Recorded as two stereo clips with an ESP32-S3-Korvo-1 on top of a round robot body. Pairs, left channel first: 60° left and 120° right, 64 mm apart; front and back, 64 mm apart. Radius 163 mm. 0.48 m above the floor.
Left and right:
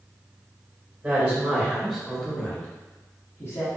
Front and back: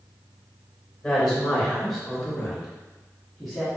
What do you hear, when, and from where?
1.0 s a woman speaking: 80° right, 1.3 m; by 3.7 s 95° left, 1.5 m